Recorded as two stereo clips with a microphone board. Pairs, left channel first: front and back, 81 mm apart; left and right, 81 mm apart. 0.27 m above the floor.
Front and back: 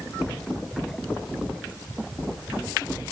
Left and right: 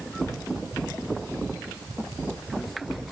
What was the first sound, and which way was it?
Only background noise.